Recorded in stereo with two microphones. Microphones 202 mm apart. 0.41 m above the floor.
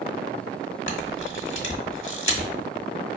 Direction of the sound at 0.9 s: 65° left (ahead or behind).